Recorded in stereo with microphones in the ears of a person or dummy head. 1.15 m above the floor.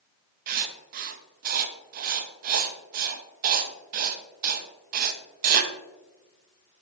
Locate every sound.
0.5 s writing: 45° right (ahead or behind), 0.7 m